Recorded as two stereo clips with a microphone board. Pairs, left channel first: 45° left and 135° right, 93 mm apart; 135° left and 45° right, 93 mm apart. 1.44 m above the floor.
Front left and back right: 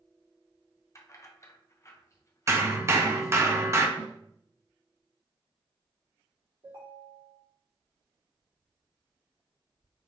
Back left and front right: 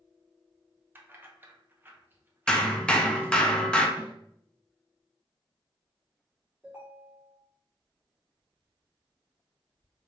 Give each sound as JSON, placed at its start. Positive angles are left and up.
{"t": 0.9, "sound": "keys jangling", "azimuth_deg": 10, "distance_m": 0.6}
{"t": 2.5, "sound": "hammering", "azimuth_deg": -155, "distance_m": 0.6}
{"t": 4.0, "sound": "a snare drum", "azimuth_deg": -115, "distance_m": 1.8}
{"t": 6.6, "sound": "a ringtone", "azimuth_deg": -120, "distance_m": 2.0}